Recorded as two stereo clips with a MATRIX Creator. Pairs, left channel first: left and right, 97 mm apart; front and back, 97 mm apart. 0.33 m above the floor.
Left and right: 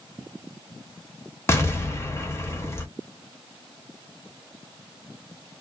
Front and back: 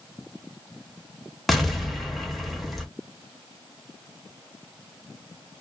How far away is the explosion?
About 0.7 m.